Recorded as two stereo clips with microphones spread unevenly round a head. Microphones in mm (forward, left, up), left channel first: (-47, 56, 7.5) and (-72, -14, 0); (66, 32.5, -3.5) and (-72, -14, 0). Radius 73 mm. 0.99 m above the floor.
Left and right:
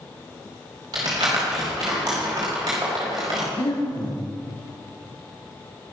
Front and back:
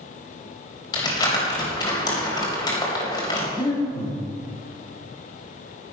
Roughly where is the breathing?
Left.